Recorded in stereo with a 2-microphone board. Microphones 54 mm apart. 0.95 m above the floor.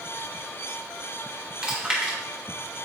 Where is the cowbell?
I don't hear a cowbell.